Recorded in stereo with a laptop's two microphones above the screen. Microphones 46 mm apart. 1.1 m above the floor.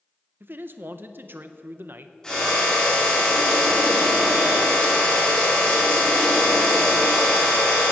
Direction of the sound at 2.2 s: 10° left (ahead or behind).